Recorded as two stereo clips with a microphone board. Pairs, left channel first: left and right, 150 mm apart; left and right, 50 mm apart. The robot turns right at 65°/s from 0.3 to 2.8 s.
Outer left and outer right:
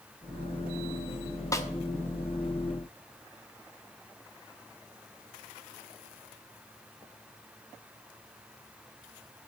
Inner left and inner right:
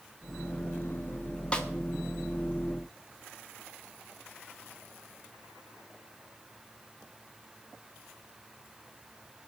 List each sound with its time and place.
1.5 s a snare drum: 20° left (ahead or behind), 1.2 m; by 1.7 s 15° left (ahead or behind), 1.2 m